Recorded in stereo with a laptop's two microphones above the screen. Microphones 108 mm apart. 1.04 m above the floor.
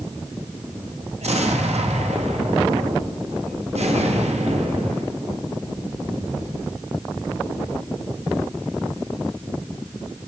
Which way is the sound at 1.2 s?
80° right.